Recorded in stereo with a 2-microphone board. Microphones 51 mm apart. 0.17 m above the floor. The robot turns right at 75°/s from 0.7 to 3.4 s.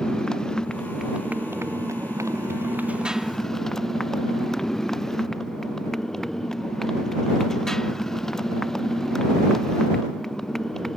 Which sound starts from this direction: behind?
A motorcycle, at 0.0 s.